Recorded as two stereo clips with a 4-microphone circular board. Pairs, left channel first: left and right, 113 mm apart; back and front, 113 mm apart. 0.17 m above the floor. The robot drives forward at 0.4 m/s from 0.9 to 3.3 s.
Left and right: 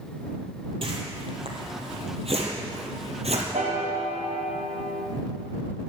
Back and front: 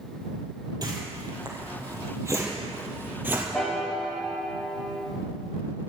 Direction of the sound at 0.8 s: 50° right.